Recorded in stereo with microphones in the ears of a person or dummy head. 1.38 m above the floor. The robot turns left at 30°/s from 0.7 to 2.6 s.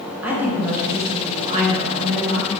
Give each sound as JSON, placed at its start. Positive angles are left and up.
{"t": 0.2, "sound": "a woman speaking", "azimuth_deg": -5, "distance_m": 0.6}